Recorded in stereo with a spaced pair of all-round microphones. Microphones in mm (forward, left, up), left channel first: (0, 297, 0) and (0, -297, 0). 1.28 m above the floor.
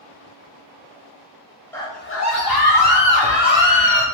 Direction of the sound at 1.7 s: 5° left (ahead or behind).